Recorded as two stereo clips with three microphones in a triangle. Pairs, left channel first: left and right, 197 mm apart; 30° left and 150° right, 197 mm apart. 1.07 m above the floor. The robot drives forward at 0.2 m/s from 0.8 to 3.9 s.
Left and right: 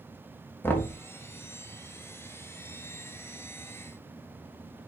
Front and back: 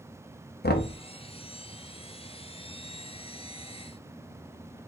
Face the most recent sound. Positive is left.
turn(degrees=150)